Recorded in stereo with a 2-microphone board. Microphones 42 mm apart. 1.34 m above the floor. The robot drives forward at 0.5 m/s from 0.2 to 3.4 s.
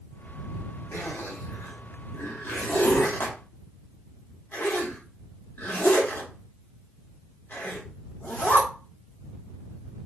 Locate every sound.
0.9 s a zipper: 80° left, 1.7 m; by 8.7 s 55° left (ahead or behind), 2 m